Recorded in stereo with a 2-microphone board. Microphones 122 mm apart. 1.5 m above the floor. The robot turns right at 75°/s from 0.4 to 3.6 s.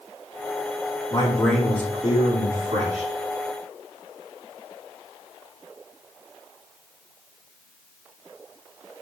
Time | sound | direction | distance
1.1 | a man speaking | 145° left | 4 m